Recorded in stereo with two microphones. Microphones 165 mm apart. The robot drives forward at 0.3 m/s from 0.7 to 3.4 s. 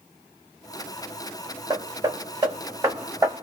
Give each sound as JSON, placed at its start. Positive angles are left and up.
{"t": 1.7, "sound": "hammering", "side_deg": -25, "distance_m": 0.8}